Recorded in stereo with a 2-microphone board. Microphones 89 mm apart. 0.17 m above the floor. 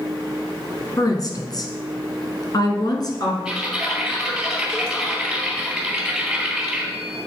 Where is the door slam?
I don't hear a door slam.